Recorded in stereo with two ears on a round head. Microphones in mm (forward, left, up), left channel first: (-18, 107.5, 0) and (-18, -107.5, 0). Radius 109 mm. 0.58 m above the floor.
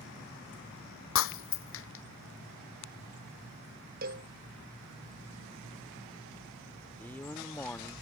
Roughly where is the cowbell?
Right.